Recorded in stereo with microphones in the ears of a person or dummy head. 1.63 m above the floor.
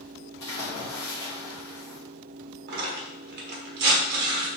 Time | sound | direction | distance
0.4 | a splash | 25° left (ahead or behind) | 1.1 m
2.7 | tearing paper | 55° right (ahead or behind) | 1.1 m